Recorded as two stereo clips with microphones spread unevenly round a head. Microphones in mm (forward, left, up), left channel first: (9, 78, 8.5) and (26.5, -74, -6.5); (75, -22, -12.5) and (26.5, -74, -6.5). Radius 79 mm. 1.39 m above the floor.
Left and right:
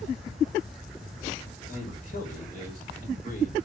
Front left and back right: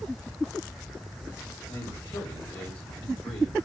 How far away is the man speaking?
About 5 m.